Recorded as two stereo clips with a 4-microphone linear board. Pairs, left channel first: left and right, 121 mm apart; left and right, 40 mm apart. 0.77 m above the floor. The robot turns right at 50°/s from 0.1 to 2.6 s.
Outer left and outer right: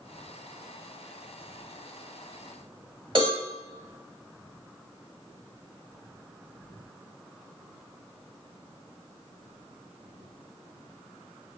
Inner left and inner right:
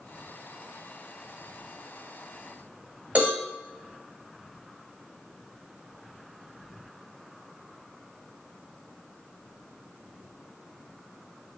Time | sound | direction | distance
3.1 | a cowbell | 45° right (ahead or behind) | 1.3 m